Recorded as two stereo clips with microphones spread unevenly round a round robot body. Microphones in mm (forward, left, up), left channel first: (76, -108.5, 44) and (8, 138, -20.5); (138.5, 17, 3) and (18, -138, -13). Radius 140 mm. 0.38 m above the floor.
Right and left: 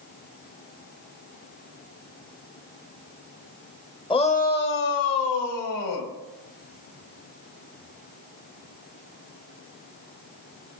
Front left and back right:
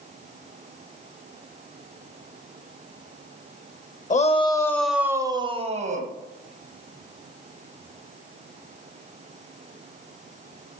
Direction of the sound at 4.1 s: 5° left.